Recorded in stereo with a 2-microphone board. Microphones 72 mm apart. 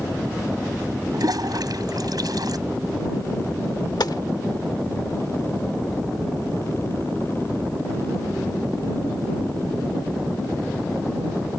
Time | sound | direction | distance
1.1 | a toilet flushing | 65° right (ahead or behind) | ?
4.0 | a gunshot | 70° left (ahead or behind) | ?